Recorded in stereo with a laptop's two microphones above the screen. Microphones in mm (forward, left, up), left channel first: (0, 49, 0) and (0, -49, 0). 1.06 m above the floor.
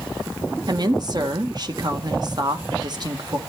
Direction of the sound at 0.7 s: 45° right (ahead or behind).